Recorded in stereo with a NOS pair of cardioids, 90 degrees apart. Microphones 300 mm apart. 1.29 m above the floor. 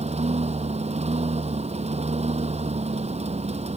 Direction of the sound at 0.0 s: 20° right.